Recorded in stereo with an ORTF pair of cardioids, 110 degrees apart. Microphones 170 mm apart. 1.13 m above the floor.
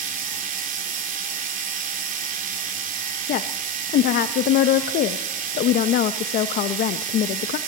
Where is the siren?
No siren in this recording.